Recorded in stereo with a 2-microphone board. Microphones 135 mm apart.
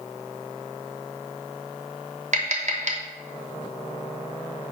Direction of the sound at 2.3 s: 60° right (ahead or behind).